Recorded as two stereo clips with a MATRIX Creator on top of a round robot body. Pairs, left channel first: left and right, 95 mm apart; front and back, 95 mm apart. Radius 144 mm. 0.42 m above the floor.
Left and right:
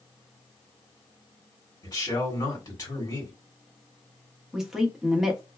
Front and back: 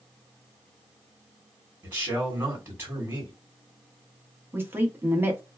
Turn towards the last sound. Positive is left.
turn(degrees=-170)